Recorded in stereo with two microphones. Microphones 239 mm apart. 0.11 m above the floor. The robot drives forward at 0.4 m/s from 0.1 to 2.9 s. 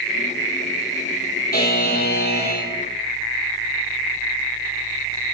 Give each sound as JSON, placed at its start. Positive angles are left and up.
{"t": 1.5, "sound": "a buzzer", "side_deg": 40, "distance_m": 4.0}